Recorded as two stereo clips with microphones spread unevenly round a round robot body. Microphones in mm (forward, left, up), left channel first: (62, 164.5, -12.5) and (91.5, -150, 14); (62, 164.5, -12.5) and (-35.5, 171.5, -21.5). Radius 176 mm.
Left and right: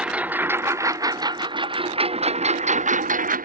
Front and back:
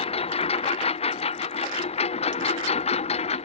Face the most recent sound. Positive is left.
turn(degrees=-20)